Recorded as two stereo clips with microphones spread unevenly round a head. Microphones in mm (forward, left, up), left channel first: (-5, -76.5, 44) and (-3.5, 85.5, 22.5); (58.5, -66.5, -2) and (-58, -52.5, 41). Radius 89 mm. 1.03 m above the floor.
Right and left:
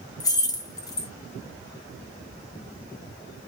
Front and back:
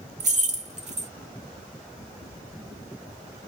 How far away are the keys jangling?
About 1.0 m.